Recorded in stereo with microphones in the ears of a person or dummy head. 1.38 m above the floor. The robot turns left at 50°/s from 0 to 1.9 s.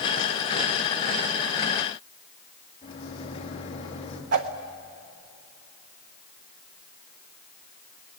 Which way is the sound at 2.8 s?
30° left (ahead or behind).